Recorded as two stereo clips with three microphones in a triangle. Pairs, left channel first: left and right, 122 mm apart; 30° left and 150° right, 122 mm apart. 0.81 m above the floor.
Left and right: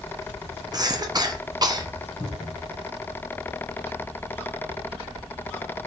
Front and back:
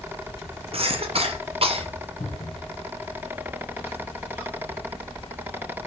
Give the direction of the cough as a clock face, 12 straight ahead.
5 o'clock.